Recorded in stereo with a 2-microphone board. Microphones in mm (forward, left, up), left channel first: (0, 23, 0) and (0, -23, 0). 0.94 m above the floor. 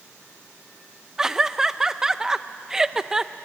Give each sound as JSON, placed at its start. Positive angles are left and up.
{"t": 1.2, "sound": "laughter", "side_deg": -15, "distance_m": 0.5}